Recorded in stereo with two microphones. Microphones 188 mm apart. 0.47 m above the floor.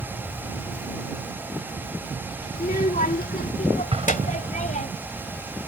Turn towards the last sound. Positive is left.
turn(degrees=-35)  # may be behind; listen again after turning